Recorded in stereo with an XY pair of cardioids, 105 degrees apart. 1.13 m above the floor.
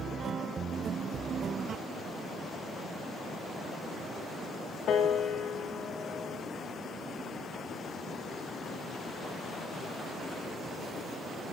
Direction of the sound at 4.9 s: 65° left.